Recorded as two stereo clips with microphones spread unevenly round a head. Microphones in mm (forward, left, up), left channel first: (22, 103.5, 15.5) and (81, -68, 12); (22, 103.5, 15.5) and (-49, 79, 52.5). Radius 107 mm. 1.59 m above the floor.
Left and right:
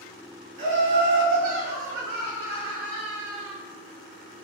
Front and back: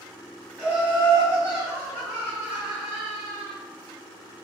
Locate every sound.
0.6 s laughter: 70° right, 1.8 m; by 3.5 s 100° right, 3 m